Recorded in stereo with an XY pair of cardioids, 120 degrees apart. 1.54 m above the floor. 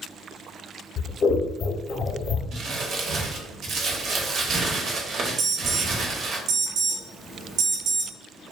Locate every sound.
1.0 s scissors: 45° left, 0.7 m
2.5 s crumpling: 60° right, 0.7 m
5.4 s an alarm: 60° right, 0.9 m